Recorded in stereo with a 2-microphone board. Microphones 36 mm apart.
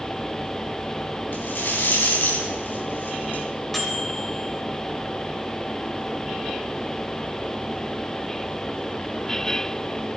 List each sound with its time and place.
1.3 s a rattle: 75° left (ahead or behind), 3.5 m
3.7 s a microwave: 5° left (ahead or behind), 2.5 m